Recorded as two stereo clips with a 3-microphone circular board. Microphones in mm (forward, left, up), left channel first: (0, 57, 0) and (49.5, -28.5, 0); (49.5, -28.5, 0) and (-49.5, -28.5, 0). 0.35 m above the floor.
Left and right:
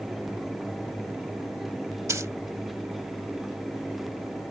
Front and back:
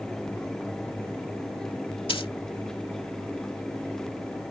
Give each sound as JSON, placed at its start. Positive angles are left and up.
{"t": 2.1, "sound": "a dropped coin", "azimuth_deg": -5}